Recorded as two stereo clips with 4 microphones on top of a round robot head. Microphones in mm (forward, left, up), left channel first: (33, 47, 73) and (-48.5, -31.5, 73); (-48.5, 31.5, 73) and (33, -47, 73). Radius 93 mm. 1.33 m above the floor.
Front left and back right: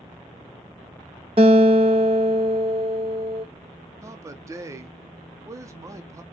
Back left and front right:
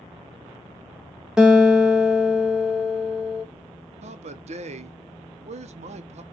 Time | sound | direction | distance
1.4 | a guitar | 125° right | 0.6 m
4.0 | a man speaking | 70° right | 0.6 m